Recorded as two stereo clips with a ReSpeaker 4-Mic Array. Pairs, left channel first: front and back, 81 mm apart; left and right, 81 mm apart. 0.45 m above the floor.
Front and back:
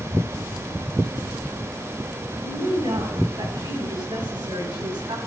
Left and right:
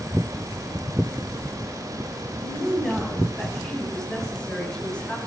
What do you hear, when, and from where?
2.4 s a woman speaking: 175° left, 8.5 m; by 5.2 s 165° left, 6 m